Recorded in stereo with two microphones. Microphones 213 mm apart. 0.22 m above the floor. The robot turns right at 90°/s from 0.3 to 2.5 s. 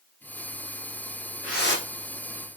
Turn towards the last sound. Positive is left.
turn(degrees=125)